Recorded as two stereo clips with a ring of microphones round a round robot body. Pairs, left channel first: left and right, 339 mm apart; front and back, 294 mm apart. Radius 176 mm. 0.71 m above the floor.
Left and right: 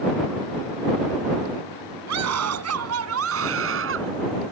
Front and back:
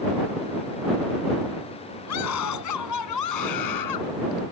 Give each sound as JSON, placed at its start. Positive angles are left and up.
{"t": 2.1, "sound": "a scream", "azimuth_deg": -45}